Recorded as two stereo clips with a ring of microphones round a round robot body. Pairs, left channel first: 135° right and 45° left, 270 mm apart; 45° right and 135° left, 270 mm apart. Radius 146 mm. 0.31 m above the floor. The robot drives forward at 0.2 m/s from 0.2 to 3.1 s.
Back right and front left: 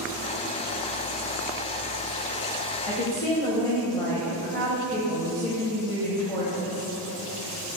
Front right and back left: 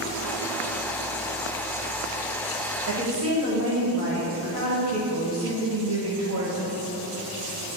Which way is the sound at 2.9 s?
150° left.